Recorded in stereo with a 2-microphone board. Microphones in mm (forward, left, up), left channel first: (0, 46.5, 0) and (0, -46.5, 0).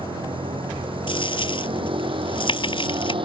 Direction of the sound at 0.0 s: 65° right (ahead or behind).